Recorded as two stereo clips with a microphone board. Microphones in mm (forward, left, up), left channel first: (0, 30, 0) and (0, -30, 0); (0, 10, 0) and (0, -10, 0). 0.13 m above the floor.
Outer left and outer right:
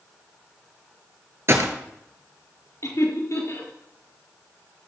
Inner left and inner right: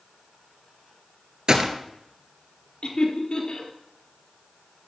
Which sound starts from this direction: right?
A gunshot, at 1.5 s.